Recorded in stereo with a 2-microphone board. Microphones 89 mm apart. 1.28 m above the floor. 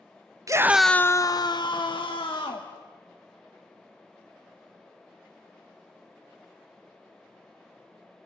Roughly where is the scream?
Right.